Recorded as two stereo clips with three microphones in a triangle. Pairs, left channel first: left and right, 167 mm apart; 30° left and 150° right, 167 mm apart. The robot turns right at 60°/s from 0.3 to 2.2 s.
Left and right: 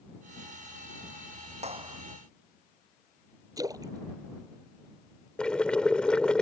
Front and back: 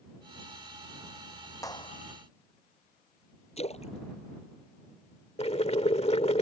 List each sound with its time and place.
1.6 s a clap: 40° right; by 2.0 s 15° right
3.6 s a splash: 20° right
5.4 s boiling: 10° left